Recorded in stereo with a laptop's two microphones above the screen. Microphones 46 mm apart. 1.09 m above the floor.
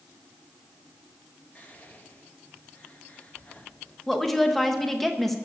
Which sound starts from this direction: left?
Whispering, at 1.6 s.